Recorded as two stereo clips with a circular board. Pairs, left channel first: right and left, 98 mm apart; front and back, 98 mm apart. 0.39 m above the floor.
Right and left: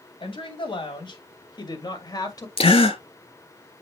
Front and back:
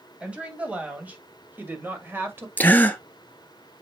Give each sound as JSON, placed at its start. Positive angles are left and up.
{"t": 0.2, "sound": "a woman speaking", "azimuth_deg": -105, "distance_m": 2.5}
{"t": 2.6, "sound": "a gasp", "azimuth_deg": -70, "distance_m": 1.1}